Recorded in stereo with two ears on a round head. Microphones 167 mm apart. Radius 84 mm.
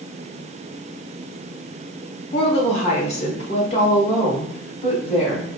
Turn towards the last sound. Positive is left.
turn(degrees=35)  # may be behind; listen again after turning